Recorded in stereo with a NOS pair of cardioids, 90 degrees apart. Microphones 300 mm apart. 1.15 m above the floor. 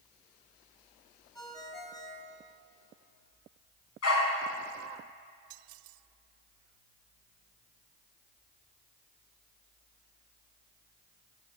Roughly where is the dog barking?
Ahead left.